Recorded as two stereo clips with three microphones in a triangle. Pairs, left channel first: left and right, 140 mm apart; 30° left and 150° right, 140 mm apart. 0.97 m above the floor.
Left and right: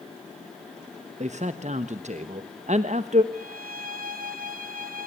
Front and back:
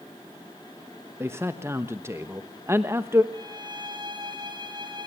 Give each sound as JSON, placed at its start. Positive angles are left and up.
{"t": 1.2, "sound": "a man speaking", "azimuth_deg": -80, "distance_m": 1.0}
{"t": 3.3, "sound": "a violin", "azimuth_deg": -90, "distance_m": 3.0}